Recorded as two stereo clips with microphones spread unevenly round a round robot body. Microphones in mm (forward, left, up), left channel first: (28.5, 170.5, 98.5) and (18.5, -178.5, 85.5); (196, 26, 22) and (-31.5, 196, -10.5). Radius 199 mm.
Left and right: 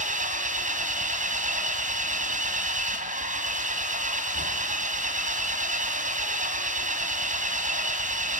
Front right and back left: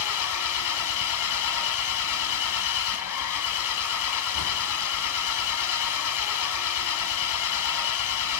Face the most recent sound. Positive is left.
turn(degrees=-25)